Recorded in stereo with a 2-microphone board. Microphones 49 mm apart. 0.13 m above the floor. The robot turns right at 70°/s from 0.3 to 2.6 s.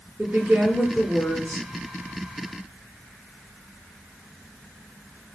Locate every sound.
0.2 s a woman speaking: 45° right, 1.8 m; by 1.7 s 50° left, 1.8 m